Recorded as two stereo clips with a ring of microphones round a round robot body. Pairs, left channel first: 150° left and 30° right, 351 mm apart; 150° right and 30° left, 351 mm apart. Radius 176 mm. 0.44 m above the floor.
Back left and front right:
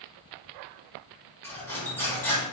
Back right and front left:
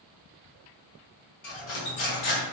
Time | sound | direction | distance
1.4 | cutlery clinking | 130° right | 0.8 m